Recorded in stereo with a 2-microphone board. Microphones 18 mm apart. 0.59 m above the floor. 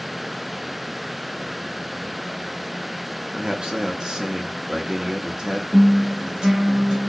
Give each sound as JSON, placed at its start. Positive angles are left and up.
{"t": 3.3, "sound": "a man speaking", "side_deg": -45, "distance_m": 0.8}
{"t": 5.7, "sound": "a guitar", "side_deg": -45, "distance_m": 1.6}